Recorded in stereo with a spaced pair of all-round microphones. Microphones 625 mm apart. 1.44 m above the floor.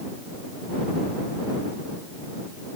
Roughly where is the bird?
No bird in this recording.